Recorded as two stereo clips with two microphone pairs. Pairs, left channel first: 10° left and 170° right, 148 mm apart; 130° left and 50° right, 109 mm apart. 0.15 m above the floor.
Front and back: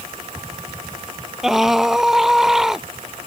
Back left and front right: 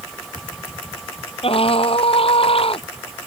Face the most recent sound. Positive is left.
turn(degrees=100)